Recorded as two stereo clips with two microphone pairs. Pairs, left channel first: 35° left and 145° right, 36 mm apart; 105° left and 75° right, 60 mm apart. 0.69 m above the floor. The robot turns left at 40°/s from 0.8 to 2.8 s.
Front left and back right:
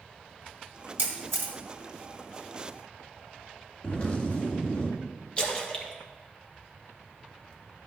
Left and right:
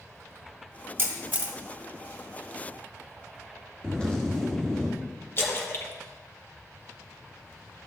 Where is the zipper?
35° left, 1.9 m.